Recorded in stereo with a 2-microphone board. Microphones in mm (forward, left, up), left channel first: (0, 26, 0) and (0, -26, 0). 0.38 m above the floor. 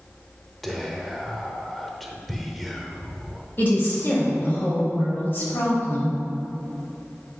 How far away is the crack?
I don't hear a crack.